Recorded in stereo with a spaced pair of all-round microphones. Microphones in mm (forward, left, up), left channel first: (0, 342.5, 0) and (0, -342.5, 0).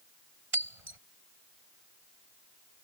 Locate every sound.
0.5 s breaking glass: 55° right (ahead or behind)